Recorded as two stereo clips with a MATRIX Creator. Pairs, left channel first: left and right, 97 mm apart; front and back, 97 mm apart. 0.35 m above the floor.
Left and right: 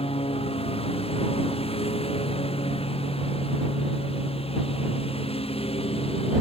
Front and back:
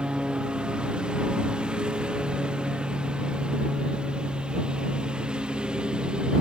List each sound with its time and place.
0.0 s a lawn mower: 100° left